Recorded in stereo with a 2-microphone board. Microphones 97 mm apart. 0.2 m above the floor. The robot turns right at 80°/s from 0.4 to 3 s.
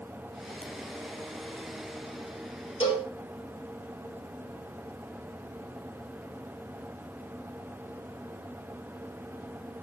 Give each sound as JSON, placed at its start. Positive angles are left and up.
{"t": 0.6, "sound": "a ringtone", "side_deg": 10, "distance_m": 0.6}
{"t": 2.8, "sound": "a cowbell", "side_deg": 70, "distance_m": 2.0}